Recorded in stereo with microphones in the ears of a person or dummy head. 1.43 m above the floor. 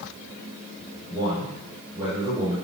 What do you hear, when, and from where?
1.1 s a man speaking: 15° right (ahead or behind), 5 m